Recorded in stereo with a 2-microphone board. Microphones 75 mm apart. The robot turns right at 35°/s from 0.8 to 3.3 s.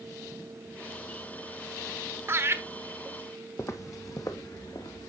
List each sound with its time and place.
2.3 s laughter: 30° right (ahead or behind), 1.0 m
3.6 s footsteps: 35° left (ahead or behind), 0.8 m; by 5.1 s 60° left (ahead or behind), 1.8 m